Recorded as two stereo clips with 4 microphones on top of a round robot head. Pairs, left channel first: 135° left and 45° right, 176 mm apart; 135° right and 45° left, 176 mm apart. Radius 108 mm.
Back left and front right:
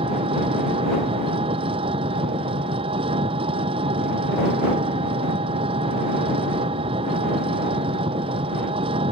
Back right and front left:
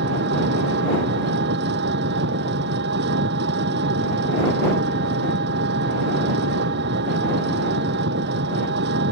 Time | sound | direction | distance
0.0 | an engine running | 15° left | ?